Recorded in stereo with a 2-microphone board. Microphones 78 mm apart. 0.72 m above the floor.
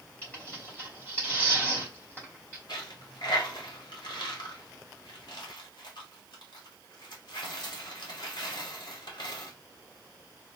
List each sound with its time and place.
0.2 s tearing paper: 25° left (ahead or behind), 3 m
2.7 s a dropped coin: 70° left (ahead or behind), 1.4 m